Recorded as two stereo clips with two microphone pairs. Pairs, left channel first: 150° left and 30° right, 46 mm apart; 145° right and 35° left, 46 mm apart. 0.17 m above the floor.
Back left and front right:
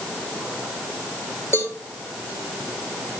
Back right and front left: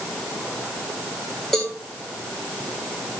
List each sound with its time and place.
1.5 s a cowbell: 130° left, 4.5 m